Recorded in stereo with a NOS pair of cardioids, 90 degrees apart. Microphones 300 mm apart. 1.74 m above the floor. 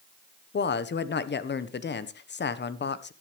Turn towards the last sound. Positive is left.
turn(degrees=35)